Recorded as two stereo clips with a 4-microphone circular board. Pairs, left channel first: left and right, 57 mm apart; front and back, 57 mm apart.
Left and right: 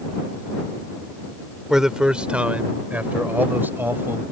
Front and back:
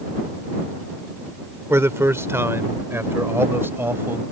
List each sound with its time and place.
1.7 s a man speaking: 170° right; by 4.2 s 135° right